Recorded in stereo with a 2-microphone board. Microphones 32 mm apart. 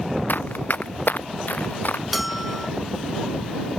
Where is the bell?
5° right (ahead or behind).